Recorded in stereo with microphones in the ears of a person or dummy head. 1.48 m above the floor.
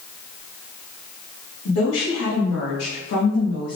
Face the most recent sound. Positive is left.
turn(degrees=60)  # may be behind; listen again after turning